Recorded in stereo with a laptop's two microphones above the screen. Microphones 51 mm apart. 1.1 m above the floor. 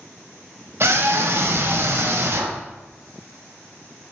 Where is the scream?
55° right (ahead or behind), 1.2 m.